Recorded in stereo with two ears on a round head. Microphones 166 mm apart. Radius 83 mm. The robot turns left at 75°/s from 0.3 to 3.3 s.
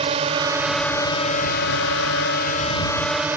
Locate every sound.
0.0 s a drone: 145° right; by 3.4 s 10° right